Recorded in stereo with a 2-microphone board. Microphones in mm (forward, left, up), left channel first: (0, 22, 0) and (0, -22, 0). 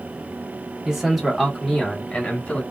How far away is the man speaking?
About 1.3 m.